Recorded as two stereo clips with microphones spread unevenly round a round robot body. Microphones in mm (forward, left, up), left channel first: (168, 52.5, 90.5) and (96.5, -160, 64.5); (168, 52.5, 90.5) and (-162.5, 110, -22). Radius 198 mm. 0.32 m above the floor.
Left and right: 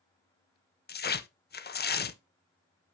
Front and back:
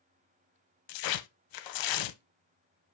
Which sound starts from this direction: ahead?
Tearing paper, at 0.9 s.